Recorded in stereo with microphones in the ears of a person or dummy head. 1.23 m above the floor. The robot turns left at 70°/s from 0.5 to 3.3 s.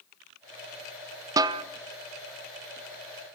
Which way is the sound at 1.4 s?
15° right (ahead or behind).